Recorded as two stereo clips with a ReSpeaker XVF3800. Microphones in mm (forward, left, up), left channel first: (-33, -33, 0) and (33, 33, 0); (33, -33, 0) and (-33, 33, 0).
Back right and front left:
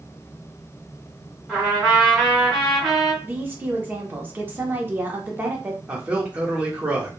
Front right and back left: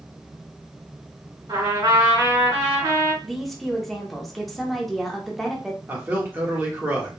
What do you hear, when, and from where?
1.5 s a trumpet: 135° left, 1.6 m
3.2 s a woman speaking: 40° left, 0.7 m
5.9 s a man speaking: 100° left, 0.7 m